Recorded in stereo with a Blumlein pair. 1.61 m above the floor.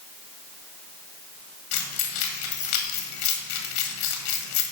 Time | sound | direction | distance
1.7 | keys jangling | 45° left | 1.8 m